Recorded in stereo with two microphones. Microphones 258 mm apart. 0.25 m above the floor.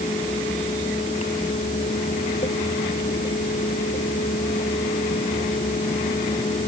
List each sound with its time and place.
Only background noise.